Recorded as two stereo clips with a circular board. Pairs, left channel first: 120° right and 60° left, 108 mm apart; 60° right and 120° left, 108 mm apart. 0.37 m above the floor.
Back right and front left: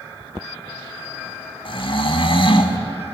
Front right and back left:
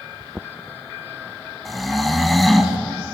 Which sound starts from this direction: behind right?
Snoring, at 1.6 s.